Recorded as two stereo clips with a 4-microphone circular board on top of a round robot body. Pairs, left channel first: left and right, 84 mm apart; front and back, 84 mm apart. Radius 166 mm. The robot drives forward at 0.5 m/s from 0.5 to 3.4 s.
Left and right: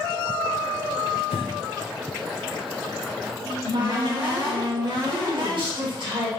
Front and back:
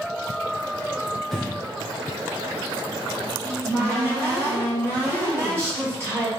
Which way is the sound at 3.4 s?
120° right.